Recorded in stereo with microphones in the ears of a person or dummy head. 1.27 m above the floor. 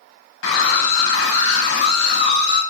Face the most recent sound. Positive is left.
turn(degrees=75)  # may be behind; listen again after turning